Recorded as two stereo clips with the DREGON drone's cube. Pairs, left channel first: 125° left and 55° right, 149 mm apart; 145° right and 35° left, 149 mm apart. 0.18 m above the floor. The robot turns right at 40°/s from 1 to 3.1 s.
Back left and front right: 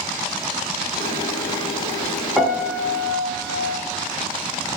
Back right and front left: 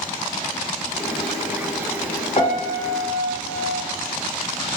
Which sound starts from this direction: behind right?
A piano, at 2.4 s.